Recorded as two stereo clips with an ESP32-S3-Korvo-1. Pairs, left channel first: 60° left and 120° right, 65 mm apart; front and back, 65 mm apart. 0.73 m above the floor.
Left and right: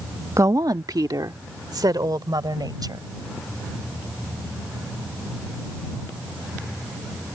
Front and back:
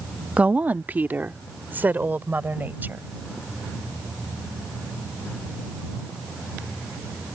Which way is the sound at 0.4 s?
115° right.